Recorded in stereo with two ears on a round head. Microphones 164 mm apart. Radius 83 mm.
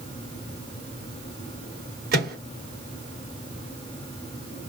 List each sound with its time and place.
2.1 s a microwave: 55° right (ahead or behind), 1.4 m